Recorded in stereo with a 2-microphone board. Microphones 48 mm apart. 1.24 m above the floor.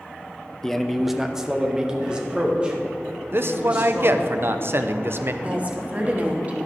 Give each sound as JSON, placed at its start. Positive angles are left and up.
{"t": 0.6, "sound": "a man speaking", "side_deg": 10, "distance_m": 0.5}
{"t": 3.3, "sound": "a man speaking", "side_deg": -50, "distance_m": 0.6}
{"t": 5.4, "sound": "a woman speaking", "side_deg": -30, "distance_m": 1.2}